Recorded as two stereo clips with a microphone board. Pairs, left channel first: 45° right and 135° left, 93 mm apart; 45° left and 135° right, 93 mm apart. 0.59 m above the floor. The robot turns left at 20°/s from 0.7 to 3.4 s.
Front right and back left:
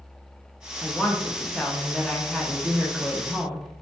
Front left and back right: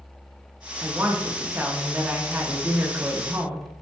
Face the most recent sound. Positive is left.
turn(degrees=-145)